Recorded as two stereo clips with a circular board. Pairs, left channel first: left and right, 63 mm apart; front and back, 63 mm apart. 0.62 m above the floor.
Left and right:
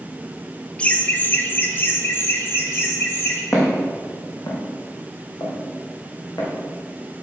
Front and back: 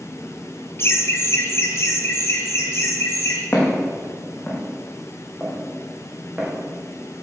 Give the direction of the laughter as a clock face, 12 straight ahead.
11 o'clock.